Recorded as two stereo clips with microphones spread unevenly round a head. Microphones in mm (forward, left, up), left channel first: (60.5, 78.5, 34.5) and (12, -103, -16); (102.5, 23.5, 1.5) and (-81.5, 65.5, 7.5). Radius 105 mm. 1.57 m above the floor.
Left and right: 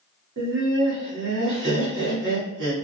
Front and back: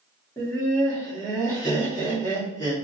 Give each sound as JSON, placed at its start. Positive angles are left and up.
{"t": 0.4, "sound": "laughter", "azimuth_deg": -90, "distance_m": 1.7}